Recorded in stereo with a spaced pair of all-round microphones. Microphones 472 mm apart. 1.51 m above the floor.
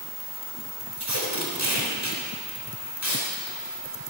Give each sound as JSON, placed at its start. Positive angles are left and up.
{"t": 1.0, "sound": "tape being pulled", "side_deg": -35, "distance_m": 3.5}